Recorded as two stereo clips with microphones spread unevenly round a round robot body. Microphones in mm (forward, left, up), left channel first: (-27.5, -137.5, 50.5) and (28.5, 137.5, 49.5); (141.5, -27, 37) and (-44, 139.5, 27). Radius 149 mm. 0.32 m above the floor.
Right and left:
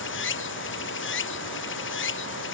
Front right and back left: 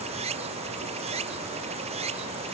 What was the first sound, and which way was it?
Running water, 150° right.